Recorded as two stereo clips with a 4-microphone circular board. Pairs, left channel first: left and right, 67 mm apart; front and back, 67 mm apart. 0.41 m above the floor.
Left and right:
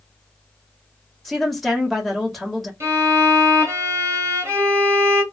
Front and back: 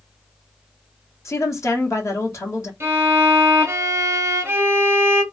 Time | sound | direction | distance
1.2 | a woman speaking | straight ahead | 1.3 m
2.8 | a violin | 130° right | 1.2 m